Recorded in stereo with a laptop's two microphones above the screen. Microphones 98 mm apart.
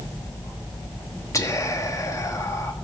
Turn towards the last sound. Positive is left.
turn(degrees=35)  # may be behind; listen again after turning